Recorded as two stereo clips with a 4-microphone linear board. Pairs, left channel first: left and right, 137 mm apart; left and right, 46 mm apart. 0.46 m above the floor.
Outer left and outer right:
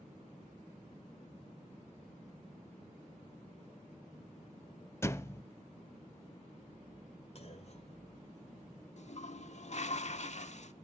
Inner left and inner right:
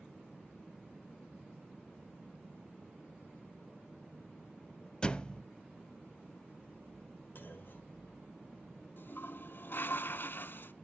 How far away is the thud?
About 0.6 m.